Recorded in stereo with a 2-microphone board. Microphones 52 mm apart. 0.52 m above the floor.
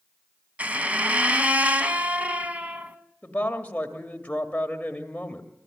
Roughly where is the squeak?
Right.